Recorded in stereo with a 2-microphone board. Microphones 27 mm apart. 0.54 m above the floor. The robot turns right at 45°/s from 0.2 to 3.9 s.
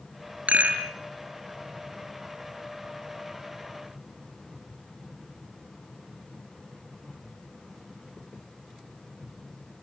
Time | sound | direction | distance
0.5 | a rattle | 65° right (ahead or behind) | 4.5 m